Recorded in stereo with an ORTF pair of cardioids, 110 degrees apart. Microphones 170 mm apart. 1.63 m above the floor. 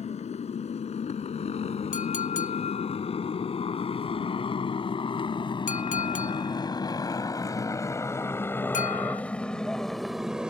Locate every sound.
0.0 s a motorcycle: 40° left; by 10.5 s 5° right
1.9 s a clink: 50° left